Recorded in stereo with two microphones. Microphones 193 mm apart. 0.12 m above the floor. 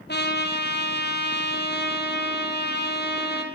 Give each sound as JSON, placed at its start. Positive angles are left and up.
{"t": 0.1, "sound": "a trumpet", "side_deg": 65, "distance_m": 3.5}